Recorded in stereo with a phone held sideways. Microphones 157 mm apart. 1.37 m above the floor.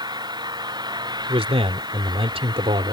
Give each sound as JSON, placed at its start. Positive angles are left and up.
{"t": 0.0, "sound": "an engine running", "side_deg": -25}
{"t": 1.3, "sound": "a man speaking", "side_deg": -40}